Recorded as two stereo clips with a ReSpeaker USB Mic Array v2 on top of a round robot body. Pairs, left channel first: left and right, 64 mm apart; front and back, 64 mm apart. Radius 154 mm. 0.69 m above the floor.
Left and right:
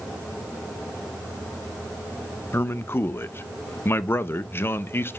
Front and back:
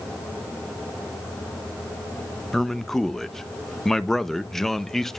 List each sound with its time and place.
2.5 s a man speaking: 80° left, 1.0 m